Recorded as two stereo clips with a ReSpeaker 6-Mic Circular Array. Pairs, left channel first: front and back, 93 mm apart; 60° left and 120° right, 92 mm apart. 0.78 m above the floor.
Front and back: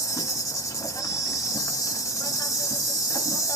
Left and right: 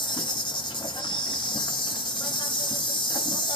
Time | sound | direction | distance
0.0 | an insect | 50° left | 1.0 m